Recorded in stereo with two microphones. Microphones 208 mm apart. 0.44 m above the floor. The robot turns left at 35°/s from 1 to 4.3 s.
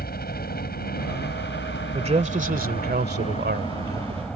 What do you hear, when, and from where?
0.0 s a helicopter: 120° left; by 4.4 s 5° left
1.9 s a man speaking: 35° right; by 4.3 s 115° right